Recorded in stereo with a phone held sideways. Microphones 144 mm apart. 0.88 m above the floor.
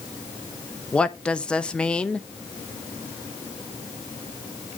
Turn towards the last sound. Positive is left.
turn(degrees=5)  # may be behind; listen again after turning